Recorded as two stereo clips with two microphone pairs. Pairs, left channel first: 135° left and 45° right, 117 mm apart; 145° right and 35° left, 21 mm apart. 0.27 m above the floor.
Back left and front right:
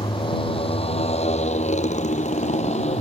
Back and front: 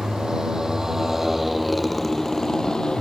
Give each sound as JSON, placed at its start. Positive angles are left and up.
{"t": 0.0, "sound": "a motorcycle", "azimuth_deg": 85}